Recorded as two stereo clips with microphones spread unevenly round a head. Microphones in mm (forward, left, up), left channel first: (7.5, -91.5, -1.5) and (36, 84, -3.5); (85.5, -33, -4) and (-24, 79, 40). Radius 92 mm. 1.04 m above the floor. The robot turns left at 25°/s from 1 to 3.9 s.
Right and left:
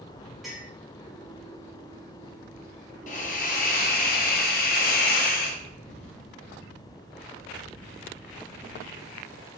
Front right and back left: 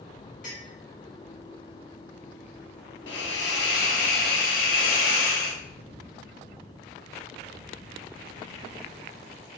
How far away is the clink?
About 2 m.